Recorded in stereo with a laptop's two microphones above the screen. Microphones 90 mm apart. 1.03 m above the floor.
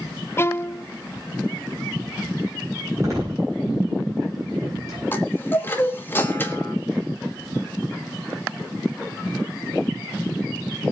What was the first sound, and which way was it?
A violin, 30° left (ahead or behind).